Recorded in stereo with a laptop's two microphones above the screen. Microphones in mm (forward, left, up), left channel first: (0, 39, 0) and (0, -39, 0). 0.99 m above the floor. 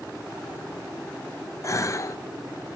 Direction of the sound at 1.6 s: 40° left (ahead or behind).